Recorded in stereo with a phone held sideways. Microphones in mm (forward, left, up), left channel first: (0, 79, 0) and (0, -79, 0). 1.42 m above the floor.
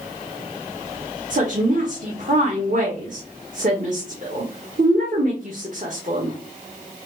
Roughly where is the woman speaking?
Right.